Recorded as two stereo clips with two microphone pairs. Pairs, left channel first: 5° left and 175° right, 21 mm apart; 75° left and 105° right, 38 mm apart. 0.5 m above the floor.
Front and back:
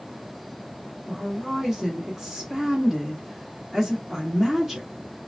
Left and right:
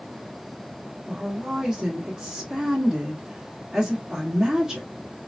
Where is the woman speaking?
145° right, 1.2 m.